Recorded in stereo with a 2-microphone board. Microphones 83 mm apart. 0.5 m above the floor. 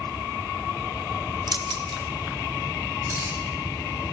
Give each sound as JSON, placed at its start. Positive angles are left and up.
{"t": 1.5, "sound": "keys jangling", "side_deg": -65, "distance_m": 1.2}